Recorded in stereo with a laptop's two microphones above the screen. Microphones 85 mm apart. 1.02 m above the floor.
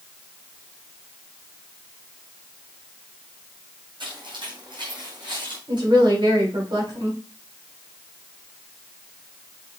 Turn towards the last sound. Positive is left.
turn(degrees=-65)  # may be behind; listen again after turning